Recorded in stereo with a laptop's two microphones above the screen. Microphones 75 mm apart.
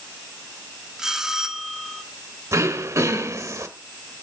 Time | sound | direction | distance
1.0 | a bell | 5° right (ahead or behind) | 1.5 m
2.5 | throat clearing | 45° right (ahead or behind) | 1.2 m